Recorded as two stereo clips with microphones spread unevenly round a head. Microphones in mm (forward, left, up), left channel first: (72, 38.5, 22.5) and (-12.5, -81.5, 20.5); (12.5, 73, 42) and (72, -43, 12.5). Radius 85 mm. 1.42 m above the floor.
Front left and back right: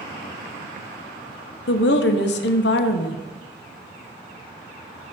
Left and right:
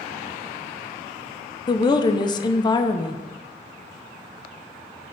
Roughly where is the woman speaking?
Ahead left.